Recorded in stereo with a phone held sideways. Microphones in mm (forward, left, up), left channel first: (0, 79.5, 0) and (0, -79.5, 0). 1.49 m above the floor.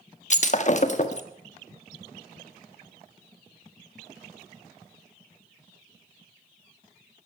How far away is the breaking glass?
About 1.2 m.